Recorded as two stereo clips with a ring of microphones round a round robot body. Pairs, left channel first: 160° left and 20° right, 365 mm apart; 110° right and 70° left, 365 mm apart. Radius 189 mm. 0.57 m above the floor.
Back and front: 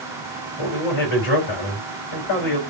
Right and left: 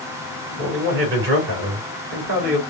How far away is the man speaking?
About 3 m.